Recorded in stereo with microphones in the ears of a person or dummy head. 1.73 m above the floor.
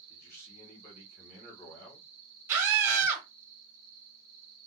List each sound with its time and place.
0.1 s a man speaking: 70° left (ahead or behind), 2 m
2.5 s a scream: 10° right (ahead or behind), 1.1 m